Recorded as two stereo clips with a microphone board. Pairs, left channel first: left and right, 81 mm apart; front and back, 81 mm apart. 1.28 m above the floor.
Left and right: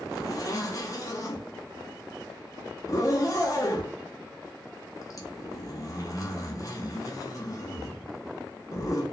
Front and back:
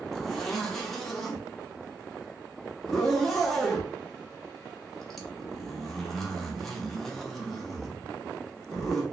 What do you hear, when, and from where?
0.1 s a zipper: 80° left, 0.7 m